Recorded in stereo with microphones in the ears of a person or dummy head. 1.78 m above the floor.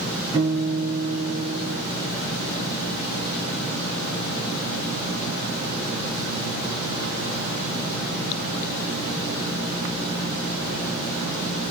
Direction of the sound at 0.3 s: 20° right (ahead or behind).